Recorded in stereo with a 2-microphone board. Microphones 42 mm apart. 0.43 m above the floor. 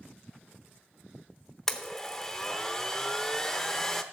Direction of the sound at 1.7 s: 10° left (ahead or behind).